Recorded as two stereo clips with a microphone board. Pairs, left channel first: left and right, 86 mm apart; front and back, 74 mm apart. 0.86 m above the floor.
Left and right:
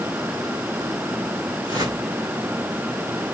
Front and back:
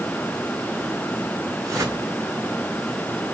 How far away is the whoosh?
About 9.5 m.